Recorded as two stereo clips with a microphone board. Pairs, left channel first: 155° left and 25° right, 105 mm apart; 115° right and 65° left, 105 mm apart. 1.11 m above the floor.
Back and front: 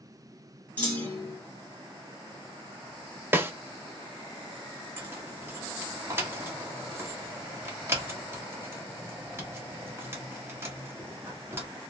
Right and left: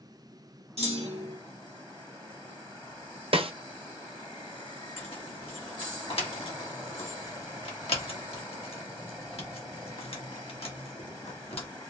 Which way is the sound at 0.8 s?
85° left.